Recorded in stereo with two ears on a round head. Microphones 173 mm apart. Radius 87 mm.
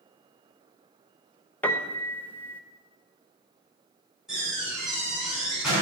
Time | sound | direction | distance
1.6 | a piano | 10° left (ahead or behind) | 0.7 m
4.3 | a door slam | 5° right (ahead or behind) | 5 m